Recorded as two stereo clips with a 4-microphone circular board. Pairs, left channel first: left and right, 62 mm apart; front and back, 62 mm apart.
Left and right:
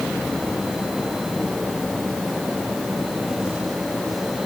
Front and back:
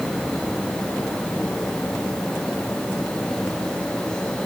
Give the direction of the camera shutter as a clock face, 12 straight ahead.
No camera shutter in this recording.